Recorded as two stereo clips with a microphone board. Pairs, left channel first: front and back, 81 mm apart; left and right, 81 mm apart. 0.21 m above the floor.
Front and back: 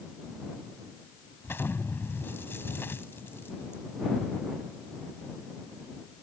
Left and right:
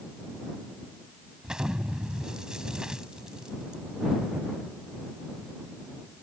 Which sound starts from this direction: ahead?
An explosion, at 1.4 s.